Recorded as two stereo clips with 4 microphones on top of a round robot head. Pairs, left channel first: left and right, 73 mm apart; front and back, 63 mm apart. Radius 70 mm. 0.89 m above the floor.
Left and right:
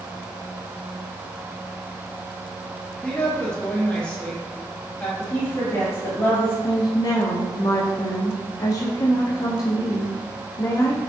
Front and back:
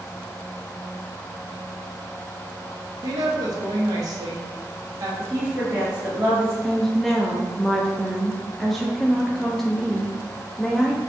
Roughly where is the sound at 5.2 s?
Behind left.